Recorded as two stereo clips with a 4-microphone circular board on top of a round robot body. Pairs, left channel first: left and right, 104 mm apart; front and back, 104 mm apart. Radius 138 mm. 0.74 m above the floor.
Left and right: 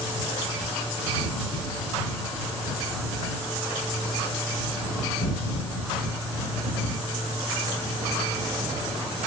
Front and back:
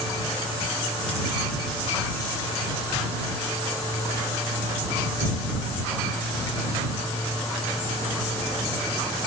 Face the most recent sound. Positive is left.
No sound to turn to.